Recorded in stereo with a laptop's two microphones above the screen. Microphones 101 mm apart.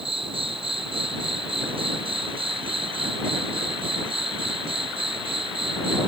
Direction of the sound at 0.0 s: 65° right (ahead or behind).